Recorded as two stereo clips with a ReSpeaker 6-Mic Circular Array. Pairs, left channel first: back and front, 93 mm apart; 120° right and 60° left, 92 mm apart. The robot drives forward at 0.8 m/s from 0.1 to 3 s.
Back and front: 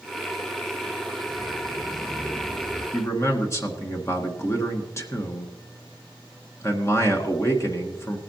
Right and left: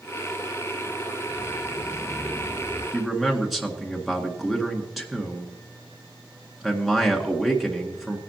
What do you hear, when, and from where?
1.3 s footsteps: 120° right, 3 m; by 2.8 s 145° right, 5 m
2.9 s a man speaking: 145° left, 1.7 m; by 8.2 s 150° left, 1.7 m